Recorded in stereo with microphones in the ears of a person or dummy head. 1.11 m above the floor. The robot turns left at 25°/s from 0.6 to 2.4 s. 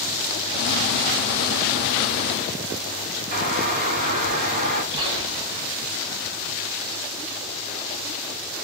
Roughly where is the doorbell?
Right.